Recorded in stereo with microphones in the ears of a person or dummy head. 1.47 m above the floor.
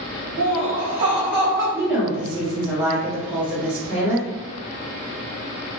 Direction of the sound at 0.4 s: 50° right (ahead or behind).